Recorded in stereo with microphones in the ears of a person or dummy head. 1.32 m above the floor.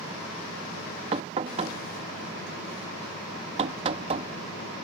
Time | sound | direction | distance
1.1 | knocking | 30° right (ahead or behind) | ?